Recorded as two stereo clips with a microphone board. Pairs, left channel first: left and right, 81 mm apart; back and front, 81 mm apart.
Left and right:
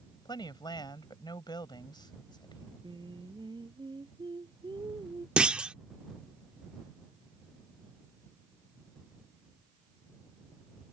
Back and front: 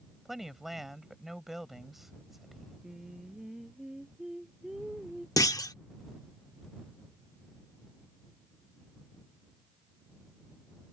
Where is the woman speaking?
85° left.